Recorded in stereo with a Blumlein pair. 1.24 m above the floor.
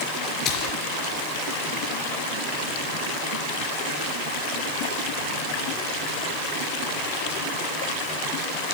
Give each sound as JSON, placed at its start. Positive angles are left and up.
{"t": 0.5, "sound": "a splash", "azimuth_deg": 30, "distance_m": 3.5}